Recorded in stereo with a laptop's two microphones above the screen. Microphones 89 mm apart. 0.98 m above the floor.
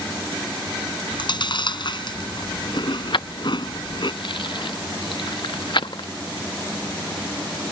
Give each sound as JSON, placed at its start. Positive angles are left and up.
{"t": 1.1, "sound": "chewing", "side_deg": 60}
{"t": 3.1, "sound": "keys jangling", "side_deg": 60}